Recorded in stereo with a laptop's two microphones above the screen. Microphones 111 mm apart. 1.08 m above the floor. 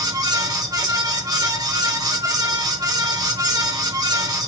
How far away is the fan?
About 1.5 m.